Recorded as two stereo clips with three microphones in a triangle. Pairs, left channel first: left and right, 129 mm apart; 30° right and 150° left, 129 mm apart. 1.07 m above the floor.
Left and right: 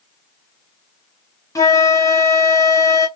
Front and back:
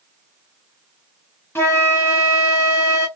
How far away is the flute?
About 0.9 m.